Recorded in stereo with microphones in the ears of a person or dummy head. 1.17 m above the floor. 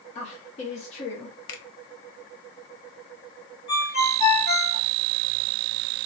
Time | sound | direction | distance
0.1 | a woman speaking | 30° left (ahead or behind) | 0.7 m
1.5 | a finger snap | 65° left (ahead or behind) | 0.7 m
3.7 | a ringtone | 35° left (ahead or behind) | 1.0 m